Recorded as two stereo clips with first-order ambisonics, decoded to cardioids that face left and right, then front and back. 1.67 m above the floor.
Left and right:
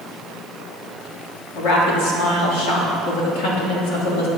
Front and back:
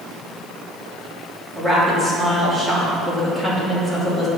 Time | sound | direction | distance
1.6 | a woman speaking | 100° left | 3 m